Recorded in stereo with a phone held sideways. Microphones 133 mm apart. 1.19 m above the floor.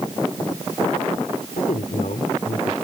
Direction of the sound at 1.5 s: 80° left.